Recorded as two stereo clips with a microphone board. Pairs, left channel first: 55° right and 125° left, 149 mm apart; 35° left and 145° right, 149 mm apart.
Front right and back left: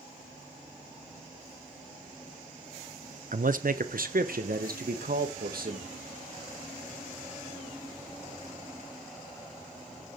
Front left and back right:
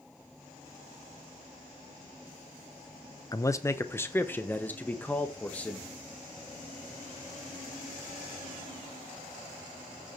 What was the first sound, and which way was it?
A man speaking, 100° left.